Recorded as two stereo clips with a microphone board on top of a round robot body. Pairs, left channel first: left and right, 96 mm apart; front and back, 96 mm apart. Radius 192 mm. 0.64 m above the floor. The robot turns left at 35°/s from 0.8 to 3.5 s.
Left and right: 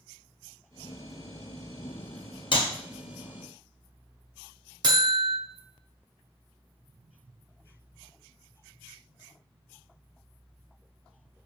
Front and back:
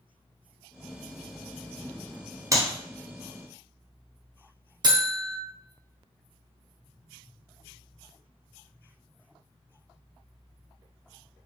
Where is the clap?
125° left, 1.3 m; by 2.7 s 120° left, 1.3 m.